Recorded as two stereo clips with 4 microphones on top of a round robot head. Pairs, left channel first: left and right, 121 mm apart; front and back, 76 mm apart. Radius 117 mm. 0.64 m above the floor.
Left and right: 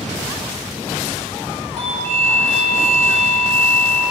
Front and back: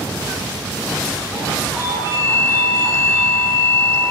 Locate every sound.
1.8 s a doorbell: 130° right, 5.5 m